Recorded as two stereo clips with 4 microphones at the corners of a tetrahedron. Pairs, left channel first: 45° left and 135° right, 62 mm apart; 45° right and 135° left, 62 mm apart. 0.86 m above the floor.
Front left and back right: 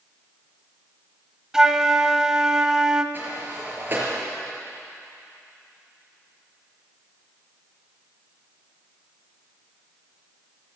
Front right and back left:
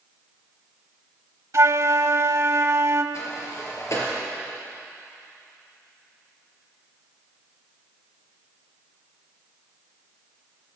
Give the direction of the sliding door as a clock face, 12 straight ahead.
3 o'clock.